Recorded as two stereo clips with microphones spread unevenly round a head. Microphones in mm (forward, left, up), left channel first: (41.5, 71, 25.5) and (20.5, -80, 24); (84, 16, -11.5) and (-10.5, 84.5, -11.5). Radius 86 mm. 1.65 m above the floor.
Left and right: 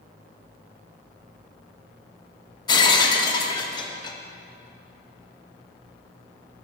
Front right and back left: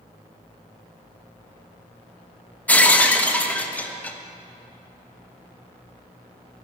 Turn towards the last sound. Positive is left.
turn(degrees=35)